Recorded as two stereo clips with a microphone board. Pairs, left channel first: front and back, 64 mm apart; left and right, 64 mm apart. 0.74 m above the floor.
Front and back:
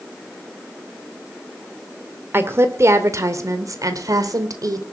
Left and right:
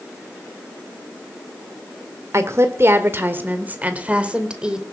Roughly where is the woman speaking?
Behind right.